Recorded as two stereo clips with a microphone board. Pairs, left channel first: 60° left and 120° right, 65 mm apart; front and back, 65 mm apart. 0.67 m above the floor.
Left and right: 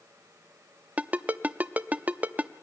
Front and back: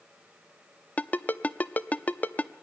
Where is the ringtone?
60° right, 0.6 m.